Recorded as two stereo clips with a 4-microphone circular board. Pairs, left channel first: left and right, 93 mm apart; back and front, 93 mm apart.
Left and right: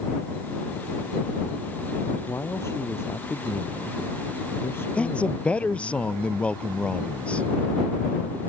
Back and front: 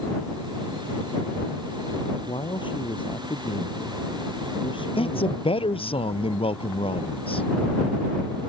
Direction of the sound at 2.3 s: 150° left.